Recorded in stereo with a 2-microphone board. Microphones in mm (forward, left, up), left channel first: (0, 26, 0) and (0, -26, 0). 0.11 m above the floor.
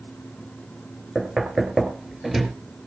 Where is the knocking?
10° right (ahead or behind), 2.0 m.